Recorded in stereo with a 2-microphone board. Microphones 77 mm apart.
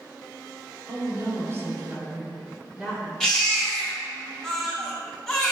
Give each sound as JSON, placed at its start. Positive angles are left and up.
{"t": 0.9, "sound": "a woman speaking", "side_deg": -50, "distance_m": 1.9}
{"t": 3.2, "sound": "a baby crying", "side_deg": 10, "distance_m": 2.0}